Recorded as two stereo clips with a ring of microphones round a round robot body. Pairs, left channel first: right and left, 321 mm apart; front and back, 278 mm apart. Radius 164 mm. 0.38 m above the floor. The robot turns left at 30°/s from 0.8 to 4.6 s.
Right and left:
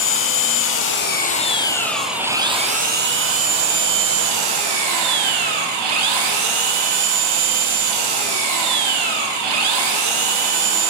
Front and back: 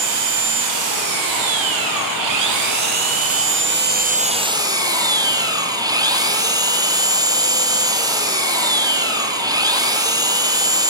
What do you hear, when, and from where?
0.0 s an engine running: 145° right, 5 m; by 10.9 s 105° left, 5 m